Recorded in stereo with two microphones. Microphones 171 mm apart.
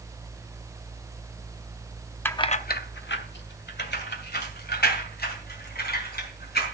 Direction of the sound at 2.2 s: 10° left (ahead or behind).